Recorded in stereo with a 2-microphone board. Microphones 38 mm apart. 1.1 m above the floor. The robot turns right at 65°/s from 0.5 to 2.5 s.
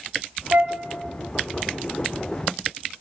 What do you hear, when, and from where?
0.5 s a flute: 65° right (ahead or behind), 1.5 m; by 0.8 s 60° right (ahead or behind), 1.5 m